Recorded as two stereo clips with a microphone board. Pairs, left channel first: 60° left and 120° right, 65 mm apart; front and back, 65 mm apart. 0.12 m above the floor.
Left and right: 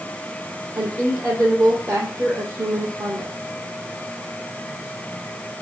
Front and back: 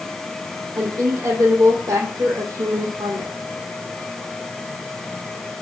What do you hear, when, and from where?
0.8 s a woman speaking: 155° right, 5 m